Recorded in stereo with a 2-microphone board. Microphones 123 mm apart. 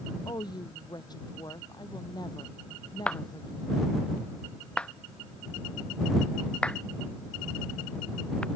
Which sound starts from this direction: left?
A woman speaking, at 0.2 s.